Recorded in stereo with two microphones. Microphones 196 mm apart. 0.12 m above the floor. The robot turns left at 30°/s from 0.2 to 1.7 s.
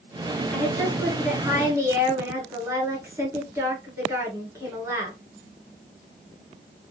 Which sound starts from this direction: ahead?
A woman speaking, at 0.5 s.